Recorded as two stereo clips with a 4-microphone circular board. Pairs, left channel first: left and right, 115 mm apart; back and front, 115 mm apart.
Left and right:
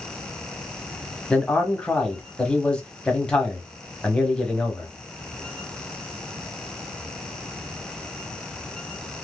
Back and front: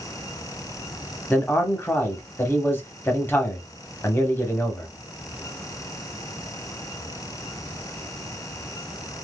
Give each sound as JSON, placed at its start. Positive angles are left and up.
{"t": 1.3, "sound": "a man speaking", "azimuth_deg": 155, "distance_m": 1.0}